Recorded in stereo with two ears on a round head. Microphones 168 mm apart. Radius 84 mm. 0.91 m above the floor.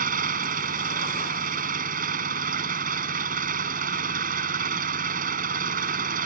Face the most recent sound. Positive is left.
turn(degrees=-45)  # may be behind; listen again after turning